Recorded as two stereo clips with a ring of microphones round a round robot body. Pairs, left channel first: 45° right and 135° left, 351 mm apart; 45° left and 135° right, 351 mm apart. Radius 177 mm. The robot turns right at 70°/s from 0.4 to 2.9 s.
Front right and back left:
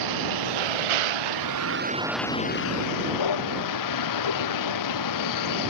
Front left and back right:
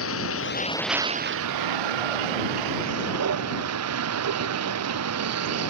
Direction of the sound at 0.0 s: 100° left.